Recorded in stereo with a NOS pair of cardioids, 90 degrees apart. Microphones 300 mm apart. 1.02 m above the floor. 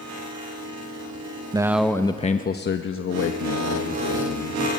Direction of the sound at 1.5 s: 15° right.